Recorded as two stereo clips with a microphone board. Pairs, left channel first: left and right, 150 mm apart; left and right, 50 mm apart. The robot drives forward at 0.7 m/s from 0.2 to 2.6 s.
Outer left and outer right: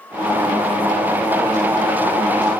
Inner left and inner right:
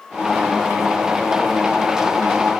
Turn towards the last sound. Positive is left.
No sound to turn to.